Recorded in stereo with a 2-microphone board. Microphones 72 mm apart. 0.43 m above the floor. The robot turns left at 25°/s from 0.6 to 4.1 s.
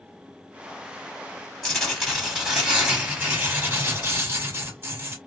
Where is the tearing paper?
10° left, 1.9 m; by 5.2 s 50° right, 1.9 m.